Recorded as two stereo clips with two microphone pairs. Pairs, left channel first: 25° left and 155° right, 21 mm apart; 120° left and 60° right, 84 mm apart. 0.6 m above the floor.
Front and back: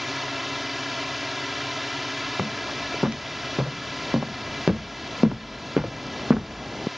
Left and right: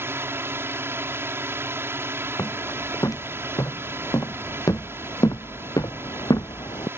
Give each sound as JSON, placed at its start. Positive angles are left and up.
{"t": 0.0, "sound": "a drone", "azimuth_deg": -75}
{"t": 2.4, "sound": "footsteps", "azimuth_deg": 165}